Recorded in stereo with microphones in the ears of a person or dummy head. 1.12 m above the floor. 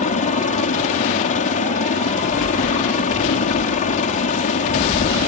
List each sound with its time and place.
0.0 s a helicopter: 35° left (ahead or behind)